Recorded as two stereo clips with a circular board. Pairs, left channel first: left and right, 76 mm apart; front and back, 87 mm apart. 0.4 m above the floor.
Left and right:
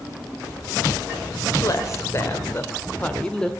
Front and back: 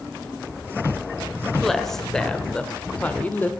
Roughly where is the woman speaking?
Left.